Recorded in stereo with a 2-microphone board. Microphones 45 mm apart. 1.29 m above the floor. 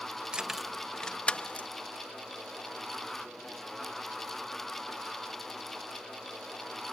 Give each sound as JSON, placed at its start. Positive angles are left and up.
{"t": 0.3, "sound": "keys jangling", "side_deg": -20}